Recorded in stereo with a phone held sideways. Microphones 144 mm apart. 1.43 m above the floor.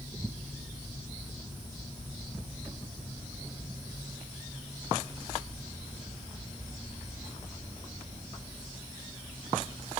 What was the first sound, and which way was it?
Only background noise.